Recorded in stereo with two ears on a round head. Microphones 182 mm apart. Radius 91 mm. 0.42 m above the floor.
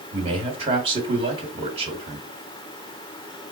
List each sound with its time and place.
0.1 s a man speaking: 30° right (ahead or behind), 1.7 m